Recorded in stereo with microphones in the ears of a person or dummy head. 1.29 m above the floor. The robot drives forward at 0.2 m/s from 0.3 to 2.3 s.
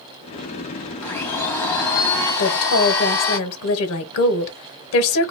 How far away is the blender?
About 0.9 m.